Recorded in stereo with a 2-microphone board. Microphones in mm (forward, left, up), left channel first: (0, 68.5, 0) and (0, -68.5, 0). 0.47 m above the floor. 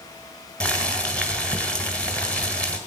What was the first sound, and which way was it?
Boiling, 10° left (ahead or behind).